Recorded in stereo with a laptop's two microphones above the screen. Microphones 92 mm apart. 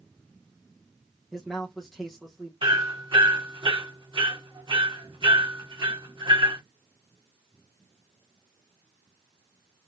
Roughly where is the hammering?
Right.